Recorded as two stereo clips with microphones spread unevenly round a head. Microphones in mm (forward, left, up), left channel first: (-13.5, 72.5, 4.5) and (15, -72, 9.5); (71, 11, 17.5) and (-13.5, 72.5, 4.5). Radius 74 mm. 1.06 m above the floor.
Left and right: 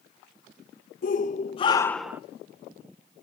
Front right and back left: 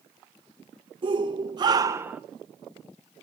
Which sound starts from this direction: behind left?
A shout, at 1.0 s.